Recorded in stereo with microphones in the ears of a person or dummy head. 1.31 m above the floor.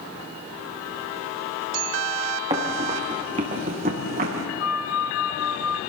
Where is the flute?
70° left (ahead or behind), 1.5 m.